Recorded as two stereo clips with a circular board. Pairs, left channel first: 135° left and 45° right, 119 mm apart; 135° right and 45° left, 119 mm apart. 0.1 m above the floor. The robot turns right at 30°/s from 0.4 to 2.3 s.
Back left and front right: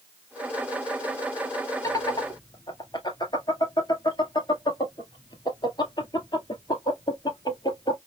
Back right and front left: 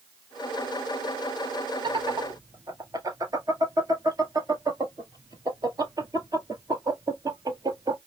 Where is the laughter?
80° left, 1.8 m; by 8.0 s 95° left, 1.8 m.